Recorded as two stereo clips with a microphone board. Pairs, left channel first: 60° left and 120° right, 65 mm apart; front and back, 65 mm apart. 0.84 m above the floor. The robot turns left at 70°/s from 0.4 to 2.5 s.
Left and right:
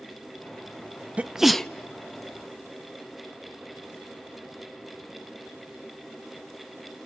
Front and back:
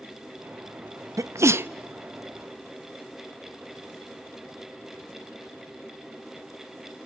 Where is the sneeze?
170° left, 0.5 m; by 1.7 s 135° left, 0.5 m.